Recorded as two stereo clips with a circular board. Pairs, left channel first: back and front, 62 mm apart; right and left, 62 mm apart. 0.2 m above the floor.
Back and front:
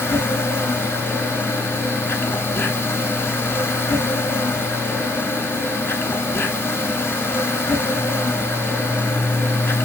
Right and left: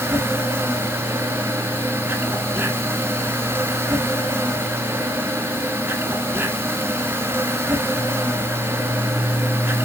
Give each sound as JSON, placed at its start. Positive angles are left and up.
{"t": 0.0, "sound": "an insect", "azimuth_deg": 135, "distance_m": 1.4}